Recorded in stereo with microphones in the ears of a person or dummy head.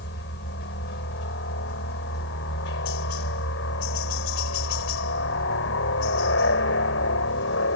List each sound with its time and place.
0.0 s a helicopter: 55° left (ahead or behind); by 7.8 s 65° left (ahead or behind)